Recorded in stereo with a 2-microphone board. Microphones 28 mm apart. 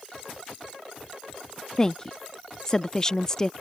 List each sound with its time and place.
1.8 s a woman speaking: 25° left (ahead or behind)